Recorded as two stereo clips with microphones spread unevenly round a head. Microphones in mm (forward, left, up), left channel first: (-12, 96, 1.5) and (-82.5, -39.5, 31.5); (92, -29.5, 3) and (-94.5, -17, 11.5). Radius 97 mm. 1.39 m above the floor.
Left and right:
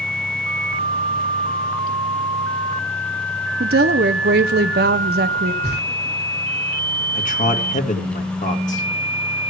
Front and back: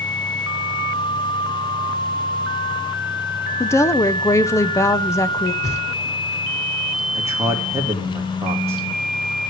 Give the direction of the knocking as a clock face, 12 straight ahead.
2 o'clock.